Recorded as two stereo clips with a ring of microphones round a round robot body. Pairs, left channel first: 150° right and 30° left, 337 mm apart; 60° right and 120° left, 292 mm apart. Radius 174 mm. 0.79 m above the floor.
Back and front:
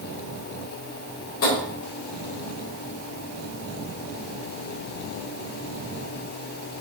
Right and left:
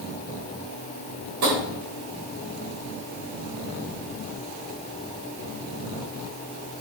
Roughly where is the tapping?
Behind.